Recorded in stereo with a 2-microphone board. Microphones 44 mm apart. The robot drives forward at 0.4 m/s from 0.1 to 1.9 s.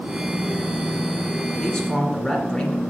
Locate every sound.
1.6 s a man speaking: 15° left (ahead or behind), 2 m; by 2.8 s 10° left (ahead or behind), 2 m